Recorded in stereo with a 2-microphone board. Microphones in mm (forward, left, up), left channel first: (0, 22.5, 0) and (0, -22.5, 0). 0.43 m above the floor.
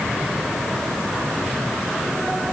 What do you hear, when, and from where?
Only background noise.